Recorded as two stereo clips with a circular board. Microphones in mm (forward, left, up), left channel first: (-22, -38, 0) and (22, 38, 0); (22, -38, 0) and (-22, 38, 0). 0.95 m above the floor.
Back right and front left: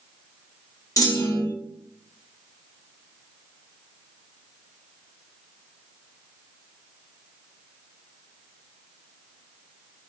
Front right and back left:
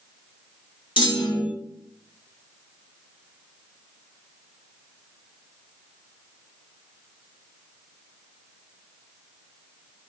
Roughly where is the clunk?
Right.